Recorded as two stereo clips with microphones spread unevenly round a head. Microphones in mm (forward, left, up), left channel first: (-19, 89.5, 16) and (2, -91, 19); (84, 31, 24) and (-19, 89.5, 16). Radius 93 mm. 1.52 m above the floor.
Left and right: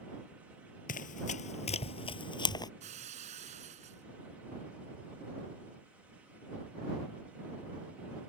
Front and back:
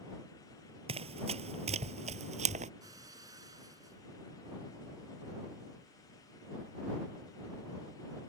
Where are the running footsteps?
130° left; by 2.7 s 160° left.